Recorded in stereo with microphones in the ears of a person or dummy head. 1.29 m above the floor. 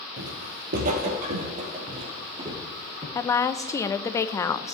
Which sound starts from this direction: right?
Footsteps, at 0.2 s.